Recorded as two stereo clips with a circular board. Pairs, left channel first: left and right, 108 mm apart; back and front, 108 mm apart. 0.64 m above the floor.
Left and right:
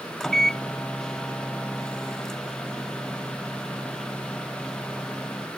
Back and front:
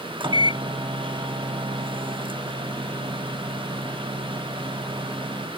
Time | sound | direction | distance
0.2 | a microwave | 5° left | ?